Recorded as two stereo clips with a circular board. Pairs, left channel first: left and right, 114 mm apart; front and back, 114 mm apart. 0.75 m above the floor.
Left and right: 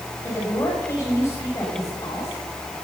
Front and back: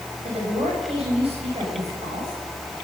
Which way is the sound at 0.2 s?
155° left.